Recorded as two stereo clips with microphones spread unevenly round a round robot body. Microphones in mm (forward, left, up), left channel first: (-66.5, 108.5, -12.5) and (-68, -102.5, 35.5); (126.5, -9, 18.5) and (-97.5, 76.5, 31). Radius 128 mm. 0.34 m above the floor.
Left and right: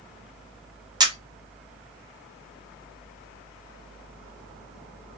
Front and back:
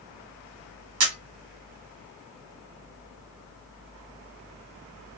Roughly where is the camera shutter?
Behind.